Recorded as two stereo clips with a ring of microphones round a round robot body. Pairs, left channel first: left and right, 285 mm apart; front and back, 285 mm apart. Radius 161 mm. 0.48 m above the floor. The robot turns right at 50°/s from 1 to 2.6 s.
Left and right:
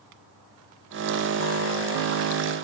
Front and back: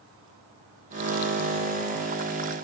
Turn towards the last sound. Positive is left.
No sound to turn to.